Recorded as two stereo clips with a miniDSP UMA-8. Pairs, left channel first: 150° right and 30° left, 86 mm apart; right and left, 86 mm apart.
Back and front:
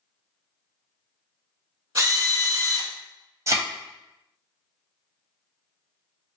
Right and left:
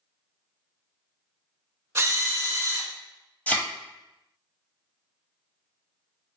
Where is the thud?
20° right, 0.8 m.